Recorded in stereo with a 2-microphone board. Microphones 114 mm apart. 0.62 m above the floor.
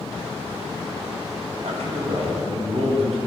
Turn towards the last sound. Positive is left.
turn(degrees=-70)  # may be behind; listen again after turning